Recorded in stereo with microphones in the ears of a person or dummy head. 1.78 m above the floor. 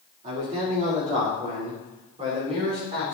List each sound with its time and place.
0.2 s a man speaking: 50° right (ahead or behind), 4 m; by 3.2 s 40° right (ahead or behind), 6 m